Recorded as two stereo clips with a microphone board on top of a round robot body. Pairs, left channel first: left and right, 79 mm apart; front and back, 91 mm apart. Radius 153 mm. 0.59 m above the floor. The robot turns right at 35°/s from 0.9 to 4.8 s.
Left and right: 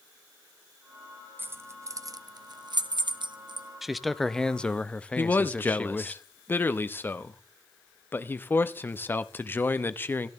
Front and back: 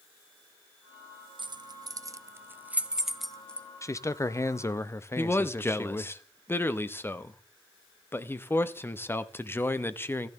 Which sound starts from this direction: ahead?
A man speaking, at 3.8 s.